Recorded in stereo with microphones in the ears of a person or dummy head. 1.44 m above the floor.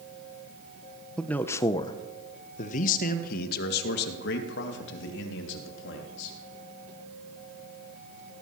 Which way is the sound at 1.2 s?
Centre (ahead or behind).